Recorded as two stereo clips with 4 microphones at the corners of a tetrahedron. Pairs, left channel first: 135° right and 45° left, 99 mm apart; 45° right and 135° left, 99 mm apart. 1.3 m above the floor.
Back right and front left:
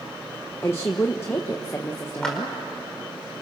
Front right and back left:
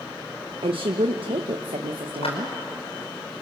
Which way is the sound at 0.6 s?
160° left.